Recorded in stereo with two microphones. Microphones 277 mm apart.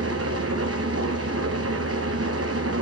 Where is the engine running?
60° right (ahead or behind), 0.9 m.